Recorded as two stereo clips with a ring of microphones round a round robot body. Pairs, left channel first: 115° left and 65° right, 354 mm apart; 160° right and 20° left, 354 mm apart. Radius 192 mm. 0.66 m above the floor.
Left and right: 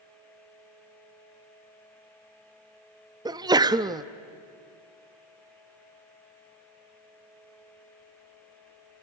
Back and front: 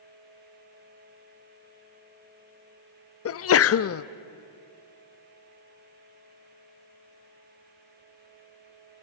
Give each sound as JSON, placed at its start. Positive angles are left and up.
{"t": 3.2, "sound": "a sneeze", "azimuth_deg": -140, "distance_m": 0.8}